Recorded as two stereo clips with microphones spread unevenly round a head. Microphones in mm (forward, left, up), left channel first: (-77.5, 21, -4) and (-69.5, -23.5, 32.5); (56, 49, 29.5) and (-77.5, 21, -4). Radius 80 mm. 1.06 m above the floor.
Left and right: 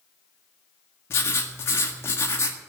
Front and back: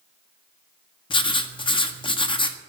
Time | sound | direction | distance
1.1 | writing | 70° left | 1.6 m